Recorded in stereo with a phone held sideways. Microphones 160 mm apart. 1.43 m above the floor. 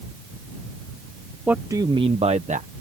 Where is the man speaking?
10° right (ahead or behind); by 2.7 s 50° right (ahead or behind).